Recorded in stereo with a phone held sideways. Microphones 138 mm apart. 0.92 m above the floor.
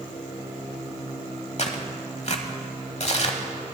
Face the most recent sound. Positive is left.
turn(degrees=50)  # may be behind; listen again after turning